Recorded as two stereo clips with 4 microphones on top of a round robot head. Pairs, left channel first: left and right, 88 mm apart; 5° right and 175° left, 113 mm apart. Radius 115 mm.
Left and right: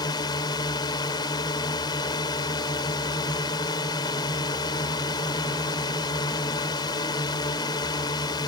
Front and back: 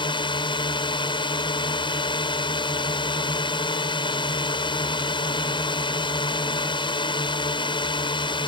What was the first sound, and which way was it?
A drone, 40° left.